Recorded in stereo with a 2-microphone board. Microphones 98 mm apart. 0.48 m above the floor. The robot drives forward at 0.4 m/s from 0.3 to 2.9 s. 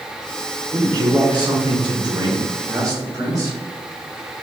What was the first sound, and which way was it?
A man speaking, 40° right (ahead or behind).